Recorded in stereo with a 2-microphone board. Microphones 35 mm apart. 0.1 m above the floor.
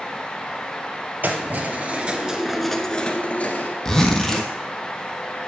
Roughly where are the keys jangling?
Right.